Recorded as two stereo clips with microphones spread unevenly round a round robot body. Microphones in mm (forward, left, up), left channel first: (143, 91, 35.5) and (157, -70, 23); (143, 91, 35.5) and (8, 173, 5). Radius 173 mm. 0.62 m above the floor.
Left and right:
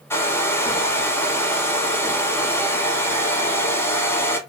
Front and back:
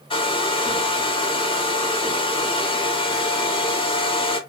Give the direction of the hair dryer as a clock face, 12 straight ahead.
11 o'clock.